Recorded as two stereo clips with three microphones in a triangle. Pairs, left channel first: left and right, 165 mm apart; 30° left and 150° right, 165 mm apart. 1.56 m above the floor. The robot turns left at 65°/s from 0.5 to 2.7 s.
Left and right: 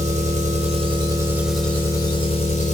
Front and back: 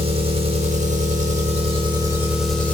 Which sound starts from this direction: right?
An engine running, at 0.0 s.